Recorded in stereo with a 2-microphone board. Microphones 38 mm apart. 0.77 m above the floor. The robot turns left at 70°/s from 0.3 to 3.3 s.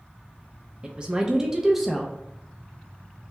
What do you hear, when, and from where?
0.8 s a woman speaking: 25° right (ahead or behind), 0.5 m; by 2.1 s 5° left (ahead or behind), 0.5 m